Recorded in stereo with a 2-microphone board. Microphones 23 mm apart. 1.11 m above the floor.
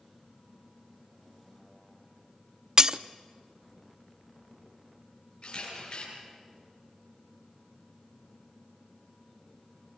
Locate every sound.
2.8 s breaking glass: 25° right (ahead or behind), 0.6 m
5.4 s a camera shutter: 45° left (ahead or behind), 9 m